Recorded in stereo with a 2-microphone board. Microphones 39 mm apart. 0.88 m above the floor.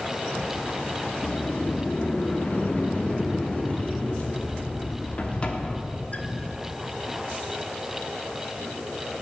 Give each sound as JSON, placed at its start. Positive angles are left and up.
{"t": 1.2, "sound": "a sliding door", "side_deg": 35, "distance_m": 1.1}